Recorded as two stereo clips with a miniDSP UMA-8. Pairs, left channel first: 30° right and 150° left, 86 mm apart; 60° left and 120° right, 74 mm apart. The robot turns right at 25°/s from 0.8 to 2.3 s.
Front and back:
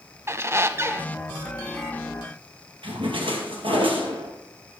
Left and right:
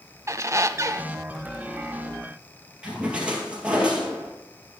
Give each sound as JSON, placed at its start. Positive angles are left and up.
{"t": 0.3, "sound": "a squeak", "azimuth_deg": -160, "distance_m": 0.5}
{"t": 2.8, "sound": "a splash", "azimuth_deg": 165, "distance_m": 2.5}